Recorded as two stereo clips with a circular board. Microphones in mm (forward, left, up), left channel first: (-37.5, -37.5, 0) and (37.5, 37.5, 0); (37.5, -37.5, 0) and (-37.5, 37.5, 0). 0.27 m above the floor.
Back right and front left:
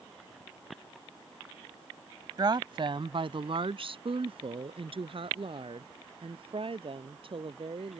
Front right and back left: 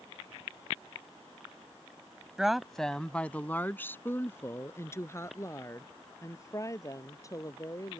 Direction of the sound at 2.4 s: 55° left.